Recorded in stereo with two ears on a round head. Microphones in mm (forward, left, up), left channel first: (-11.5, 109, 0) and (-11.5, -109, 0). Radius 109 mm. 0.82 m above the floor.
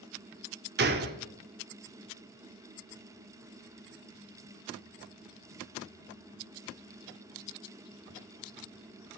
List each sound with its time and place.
0.8 s a gunshot: 40° right (ahead or behind), 1.1 m